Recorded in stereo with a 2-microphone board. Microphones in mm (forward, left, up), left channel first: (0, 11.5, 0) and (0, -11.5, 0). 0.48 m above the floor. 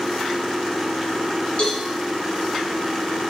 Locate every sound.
1.6 s a cowbell: 40° left (ahead or behind), 1.0 m